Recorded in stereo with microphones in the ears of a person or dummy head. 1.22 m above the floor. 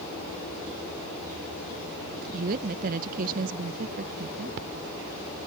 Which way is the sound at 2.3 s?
45° right (ahead or behind).